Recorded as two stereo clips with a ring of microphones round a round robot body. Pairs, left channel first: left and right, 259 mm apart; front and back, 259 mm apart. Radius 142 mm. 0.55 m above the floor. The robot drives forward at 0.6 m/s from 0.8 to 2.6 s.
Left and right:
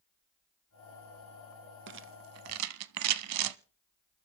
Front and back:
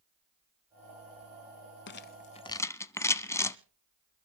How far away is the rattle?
About 0.9 m.